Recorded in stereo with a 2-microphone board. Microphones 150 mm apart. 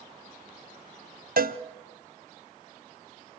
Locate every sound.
1.4 s a cowbell: 75° right (ahead or behind), 0.6 m